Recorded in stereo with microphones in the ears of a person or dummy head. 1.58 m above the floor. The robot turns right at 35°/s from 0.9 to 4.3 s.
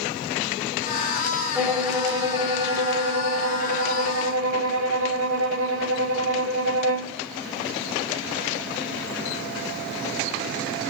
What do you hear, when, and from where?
1.6 s a violin: 175° left, 1.4 m; by 7.2 s 90° right, 1.4 m